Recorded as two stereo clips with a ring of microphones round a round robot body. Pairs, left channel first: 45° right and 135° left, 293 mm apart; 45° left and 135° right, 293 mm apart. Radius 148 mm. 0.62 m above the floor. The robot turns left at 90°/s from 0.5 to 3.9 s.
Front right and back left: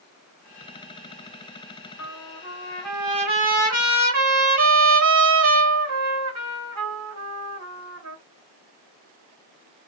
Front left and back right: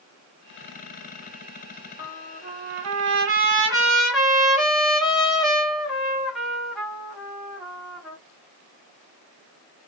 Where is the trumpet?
55° right, 1.3 m; by 8.2 s 135° left, 1.3 m.